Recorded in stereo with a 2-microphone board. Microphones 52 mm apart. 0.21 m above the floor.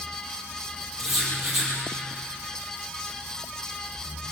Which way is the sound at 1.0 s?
5° right (ahead or behind).